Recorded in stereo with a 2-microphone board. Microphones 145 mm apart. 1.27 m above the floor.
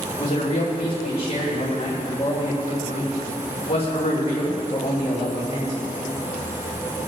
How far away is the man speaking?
About 3.5 m.